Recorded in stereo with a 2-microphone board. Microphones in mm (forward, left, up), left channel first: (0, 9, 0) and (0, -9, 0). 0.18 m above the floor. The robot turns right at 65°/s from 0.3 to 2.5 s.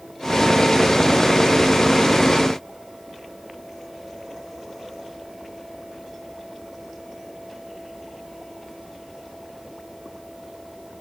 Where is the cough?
I don't hear a cough.